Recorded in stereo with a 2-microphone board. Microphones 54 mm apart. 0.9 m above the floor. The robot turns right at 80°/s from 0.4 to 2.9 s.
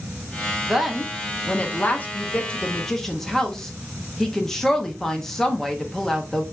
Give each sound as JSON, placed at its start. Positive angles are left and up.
{"t": 0.7, "sound": "a woman speaking", "side_deg": -5, "distance_m": 0.8}